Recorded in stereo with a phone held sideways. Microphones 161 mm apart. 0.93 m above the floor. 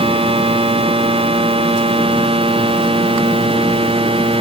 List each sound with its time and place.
0.0 s a machine running: 35° right (ahead or behind)